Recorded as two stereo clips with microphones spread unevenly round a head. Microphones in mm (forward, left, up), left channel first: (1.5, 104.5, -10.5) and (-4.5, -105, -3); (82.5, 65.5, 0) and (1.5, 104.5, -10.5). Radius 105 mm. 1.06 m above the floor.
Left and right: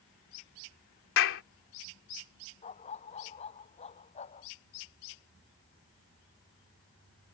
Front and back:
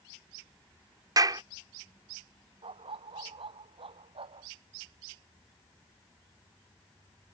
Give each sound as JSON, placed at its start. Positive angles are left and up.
{"t": 1.2, "sound": "a clap", "azimuth_deg": 110}
{"t": 2.6, "sound": "a dog barking", "azimuth_deg": 150}